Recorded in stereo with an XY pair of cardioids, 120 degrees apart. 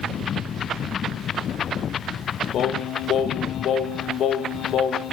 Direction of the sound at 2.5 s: 60° left.